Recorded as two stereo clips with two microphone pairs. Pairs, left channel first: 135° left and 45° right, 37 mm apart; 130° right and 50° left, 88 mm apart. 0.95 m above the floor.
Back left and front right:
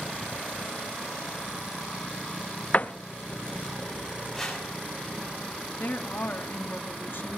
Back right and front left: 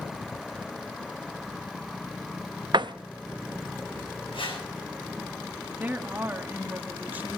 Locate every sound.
2.7 s a door slam: 85° left, 0.5 m
4.3 s a whoosh: 145° right, 7.5 m
5.8 s a woman speaking: 120° left, 1.8 m